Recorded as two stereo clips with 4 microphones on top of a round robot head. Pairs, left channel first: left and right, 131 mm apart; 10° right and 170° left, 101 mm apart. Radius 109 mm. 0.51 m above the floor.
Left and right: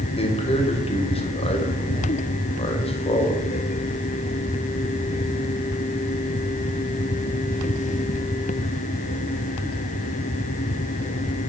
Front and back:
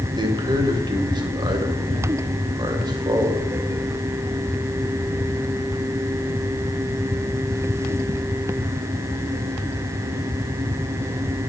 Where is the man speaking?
130° left, 2.5 m.